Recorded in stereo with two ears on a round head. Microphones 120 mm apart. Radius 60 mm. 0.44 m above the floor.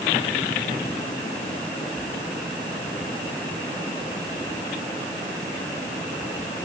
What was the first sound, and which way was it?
Only background noise.